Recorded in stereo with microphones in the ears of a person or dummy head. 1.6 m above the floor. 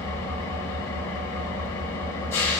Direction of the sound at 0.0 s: 20° left (ahead or behind).